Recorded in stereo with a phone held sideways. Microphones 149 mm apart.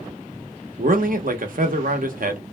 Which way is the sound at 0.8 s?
65° right (ahead or behind).